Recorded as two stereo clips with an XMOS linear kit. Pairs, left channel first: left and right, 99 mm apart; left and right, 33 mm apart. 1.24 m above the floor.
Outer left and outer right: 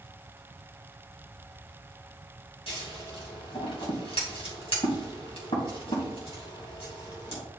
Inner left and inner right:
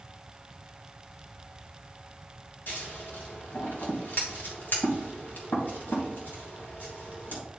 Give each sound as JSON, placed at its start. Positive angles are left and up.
{"t": 2.7, "sound": "scissors", "side_deg": 75, "distance_m": 3.0}